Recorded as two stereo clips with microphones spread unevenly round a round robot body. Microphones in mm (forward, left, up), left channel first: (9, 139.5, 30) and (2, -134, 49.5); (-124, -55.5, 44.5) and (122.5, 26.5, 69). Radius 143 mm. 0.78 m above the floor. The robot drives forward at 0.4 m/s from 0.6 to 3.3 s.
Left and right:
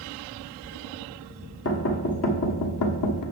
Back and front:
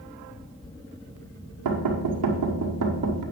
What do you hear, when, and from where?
1.6 s knocking: 40° left, 1.5 m; by 3.2 s 65° left, 1.1 m